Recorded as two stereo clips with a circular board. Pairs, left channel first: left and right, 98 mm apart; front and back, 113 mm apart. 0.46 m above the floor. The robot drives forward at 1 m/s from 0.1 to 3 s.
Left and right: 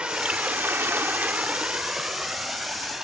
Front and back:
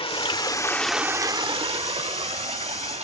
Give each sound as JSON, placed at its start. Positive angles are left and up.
{"t": 0.0, "sound": "running water", "azimuth_deg": -15, "distance_m": 1.0}